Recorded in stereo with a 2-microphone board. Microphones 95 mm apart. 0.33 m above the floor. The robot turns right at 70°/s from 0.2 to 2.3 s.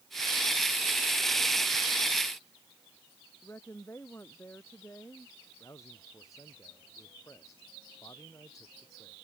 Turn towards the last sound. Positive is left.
turn(degrees=35)  # may be behind; listen again after turning